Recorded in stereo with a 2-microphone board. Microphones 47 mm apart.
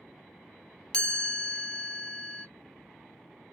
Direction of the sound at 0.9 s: 20° left (ahead or behind).